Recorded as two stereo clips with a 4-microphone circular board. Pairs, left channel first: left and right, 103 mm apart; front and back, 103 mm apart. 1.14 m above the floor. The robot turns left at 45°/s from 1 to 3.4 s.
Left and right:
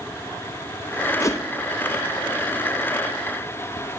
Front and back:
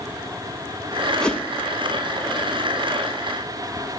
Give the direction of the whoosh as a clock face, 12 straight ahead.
10 o'clock.